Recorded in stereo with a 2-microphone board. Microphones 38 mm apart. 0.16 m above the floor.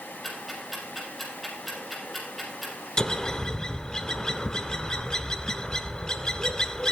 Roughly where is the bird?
Centre.